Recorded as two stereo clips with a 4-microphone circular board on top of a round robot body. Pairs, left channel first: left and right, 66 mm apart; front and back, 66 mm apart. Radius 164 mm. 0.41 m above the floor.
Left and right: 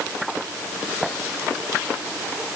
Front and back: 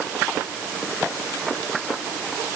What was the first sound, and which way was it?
Only background noise.